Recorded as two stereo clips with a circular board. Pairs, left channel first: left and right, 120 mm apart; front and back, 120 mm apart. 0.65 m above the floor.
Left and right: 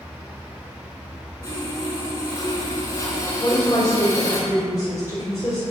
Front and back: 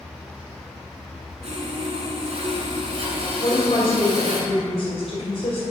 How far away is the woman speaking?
About 2.5 m.